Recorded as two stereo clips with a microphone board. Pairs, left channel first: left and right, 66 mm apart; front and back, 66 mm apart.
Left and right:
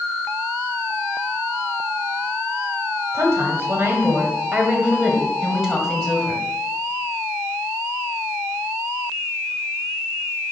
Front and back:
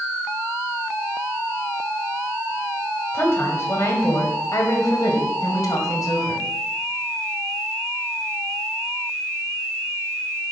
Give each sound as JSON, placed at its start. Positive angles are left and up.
{"t": 3.1, "sound": "a woman speaking", "azimuth_deg": -50, "distance_m": 2.0}